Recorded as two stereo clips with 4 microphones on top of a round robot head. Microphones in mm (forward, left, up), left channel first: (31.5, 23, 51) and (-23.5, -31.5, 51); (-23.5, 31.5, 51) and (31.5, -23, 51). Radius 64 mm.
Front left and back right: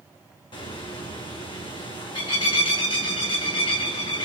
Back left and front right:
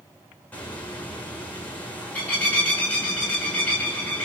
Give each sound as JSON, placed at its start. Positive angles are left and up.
{"t": 0.5, "sound": "a bird", "azimuth_deg": 65, "distance_m": 8.0}